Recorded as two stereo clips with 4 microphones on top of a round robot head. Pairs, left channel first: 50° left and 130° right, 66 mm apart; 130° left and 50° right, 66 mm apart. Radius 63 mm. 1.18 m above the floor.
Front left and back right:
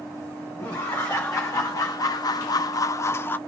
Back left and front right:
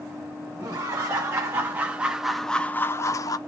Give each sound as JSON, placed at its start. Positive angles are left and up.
{"t": 0.6, "sound": "laughter", "azimuth_deg": -5, "distance_m": 1.3}